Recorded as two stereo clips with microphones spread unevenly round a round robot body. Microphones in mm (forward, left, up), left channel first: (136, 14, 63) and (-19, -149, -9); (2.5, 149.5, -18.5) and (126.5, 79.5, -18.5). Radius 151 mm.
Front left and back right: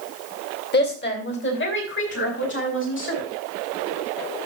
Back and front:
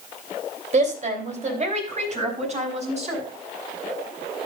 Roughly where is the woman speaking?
Ahead.